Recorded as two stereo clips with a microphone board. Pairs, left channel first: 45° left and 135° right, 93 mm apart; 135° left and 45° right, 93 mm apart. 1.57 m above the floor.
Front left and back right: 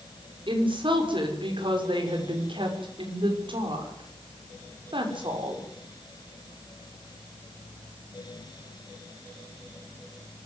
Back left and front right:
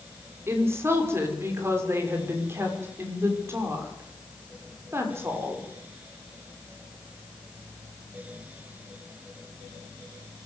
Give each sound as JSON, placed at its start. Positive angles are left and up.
{"t": 0.5, "sound": "a woman speaking", "azimuth_deg": -105, "distance_m": 6.0}